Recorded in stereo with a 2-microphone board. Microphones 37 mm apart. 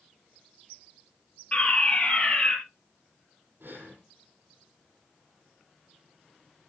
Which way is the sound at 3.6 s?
65° right (ahead or behind).